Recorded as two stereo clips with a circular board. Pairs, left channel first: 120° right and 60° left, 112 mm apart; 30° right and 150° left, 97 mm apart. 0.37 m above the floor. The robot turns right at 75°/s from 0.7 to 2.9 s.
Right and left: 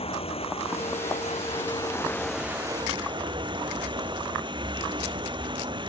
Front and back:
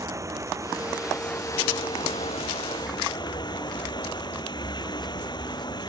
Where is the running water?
150° right; by 5.9 s 15° left.